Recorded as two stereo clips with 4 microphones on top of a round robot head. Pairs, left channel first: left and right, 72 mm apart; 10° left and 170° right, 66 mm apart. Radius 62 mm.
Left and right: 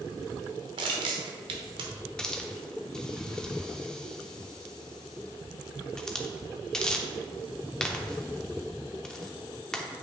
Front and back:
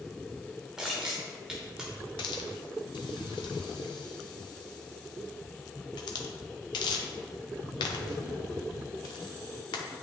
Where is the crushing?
85° right, 0.8 m.